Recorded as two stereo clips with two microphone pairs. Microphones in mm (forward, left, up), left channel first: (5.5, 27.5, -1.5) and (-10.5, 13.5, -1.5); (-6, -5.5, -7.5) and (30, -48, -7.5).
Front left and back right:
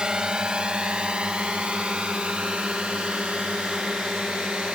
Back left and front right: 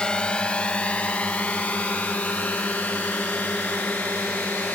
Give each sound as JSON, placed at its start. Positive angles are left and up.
{"t": 0.0, "sound": "a drone", "azimuth_deg": -165}